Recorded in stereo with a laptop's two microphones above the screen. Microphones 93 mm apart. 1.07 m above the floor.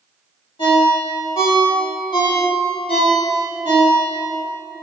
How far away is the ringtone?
About 1.6 m.